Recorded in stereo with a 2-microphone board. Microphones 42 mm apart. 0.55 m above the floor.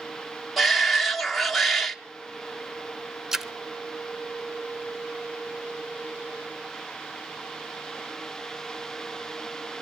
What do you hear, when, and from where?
0.6 s a shout: centre (ahead or behind), 1.1 m
3.3 s a splash: 10° right (ahead or behind), 0.6 m